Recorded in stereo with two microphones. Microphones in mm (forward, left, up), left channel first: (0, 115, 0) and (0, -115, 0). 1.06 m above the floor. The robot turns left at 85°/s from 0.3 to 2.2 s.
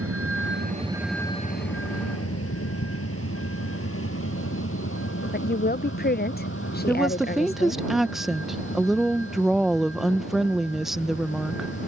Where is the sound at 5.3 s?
45° left (ahead or behind).